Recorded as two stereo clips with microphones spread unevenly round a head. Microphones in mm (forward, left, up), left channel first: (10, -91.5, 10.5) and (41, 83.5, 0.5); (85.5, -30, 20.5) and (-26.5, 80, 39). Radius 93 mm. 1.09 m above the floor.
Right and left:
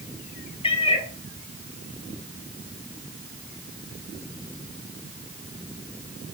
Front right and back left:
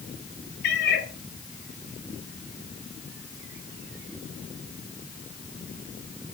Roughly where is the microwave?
No microwave in this recording.